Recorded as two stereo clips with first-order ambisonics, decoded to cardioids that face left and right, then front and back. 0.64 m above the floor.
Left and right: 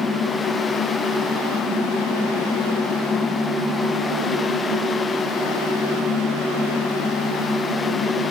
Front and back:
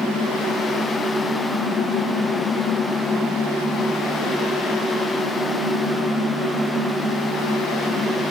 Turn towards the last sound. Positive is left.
No sound to turn to.